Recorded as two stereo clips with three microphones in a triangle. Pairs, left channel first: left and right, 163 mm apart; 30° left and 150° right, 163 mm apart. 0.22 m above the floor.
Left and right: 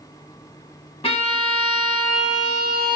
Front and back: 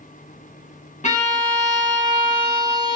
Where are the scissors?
I don't hear scissors.